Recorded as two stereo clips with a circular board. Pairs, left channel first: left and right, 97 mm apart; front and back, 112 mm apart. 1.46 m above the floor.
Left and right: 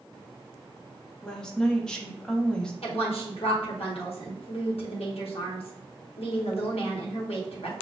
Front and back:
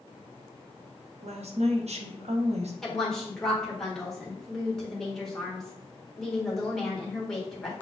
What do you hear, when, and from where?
1.2 s a woman speaking: 175° left, 0.9 m
2.8 s a woman speaking: 85° left, 1.5 m